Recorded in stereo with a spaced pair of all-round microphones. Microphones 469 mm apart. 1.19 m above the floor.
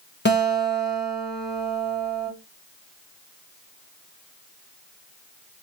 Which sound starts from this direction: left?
A guitar, at 0.2 s.